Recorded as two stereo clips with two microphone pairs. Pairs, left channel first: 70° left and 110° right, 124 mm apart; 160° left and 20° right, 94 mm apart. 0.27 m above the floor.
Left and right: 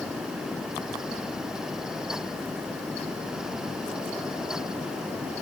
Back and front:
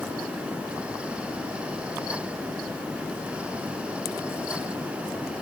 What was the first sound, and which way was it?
Only background noise.